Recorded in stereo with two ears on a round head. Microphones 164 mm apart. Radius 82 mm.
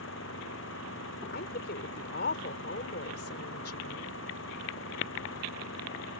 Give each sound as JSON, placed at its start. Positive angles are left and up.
{"t": 0.0, "sound": "an engine running", "side_deg": 80}
{"t": 1.3, "sound": "a woman speaking", "side_deg": 60}